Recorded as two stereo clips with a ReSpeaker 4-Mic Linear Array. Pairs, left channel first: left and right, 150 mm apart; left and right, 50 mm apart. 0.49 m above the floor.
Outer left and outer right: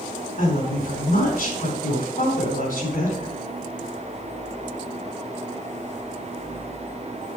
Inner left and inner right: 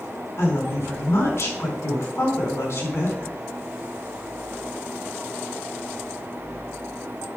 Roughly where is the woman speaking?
Left.